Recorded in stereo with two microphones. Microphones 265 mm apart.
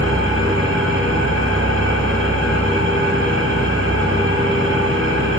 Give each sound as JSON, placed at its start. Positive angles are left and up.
{"t": 0.0, "sound": "an engine running", "side_deg": -50, "distance_m": 2.5}